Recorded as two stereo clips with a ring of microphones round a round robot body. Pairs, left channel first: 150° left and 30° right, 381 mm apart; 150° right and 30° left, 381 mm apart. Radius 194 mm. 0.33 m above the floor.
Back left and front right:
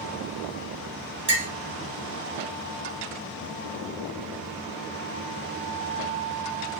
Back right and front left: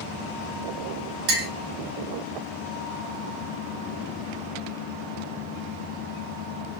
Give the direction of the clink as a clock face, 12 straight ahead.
11 o'clock.